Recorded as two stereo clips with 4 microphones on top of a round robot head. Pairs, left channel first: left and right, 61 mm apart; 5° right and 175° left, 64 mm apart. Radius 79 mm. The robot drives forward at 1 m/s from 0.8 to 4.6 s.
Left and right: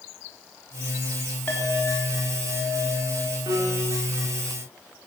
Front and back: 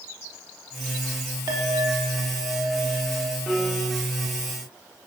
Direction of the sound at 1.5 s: 155° left.